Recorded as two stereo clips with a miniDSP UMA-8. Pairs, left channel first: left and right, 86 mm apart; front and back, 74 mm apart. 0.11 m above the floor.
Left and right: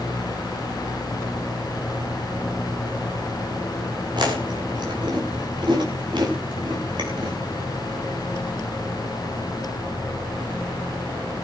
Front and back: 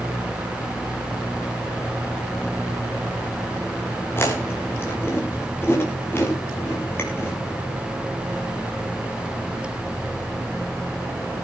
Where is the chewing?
60° right, 5 m.